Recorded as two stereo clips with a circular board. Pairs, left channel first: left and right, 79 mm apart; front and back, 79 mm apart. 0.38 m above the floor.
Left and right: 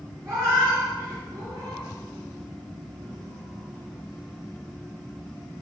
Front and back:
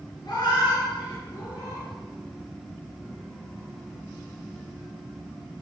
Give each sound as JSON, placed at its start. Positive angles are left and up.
{"t": 0.2, "sound": "a cat meowing", "azimuth_deg": -35, "distance_m": 3.0}